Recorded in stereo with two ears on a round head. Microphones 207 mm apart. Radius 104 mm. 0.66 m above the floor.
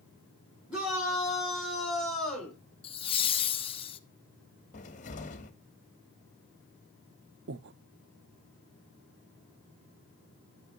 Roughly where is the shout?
Centre.